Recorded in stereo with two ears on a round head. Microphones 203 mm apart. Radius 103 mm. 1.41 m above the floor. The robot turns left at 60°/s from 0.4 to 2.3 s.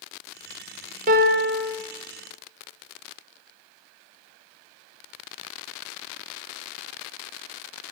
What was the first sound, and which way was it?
A piano, 45° right.